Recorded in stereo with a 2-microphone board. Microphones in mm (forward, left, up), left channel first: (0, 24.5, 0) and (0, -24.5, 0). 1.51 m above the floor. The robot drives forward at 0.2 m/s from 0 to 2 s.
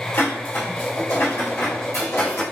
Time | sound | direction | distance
0.1 | dishes clattering | 75° left (ahead or behind) | 1.9 m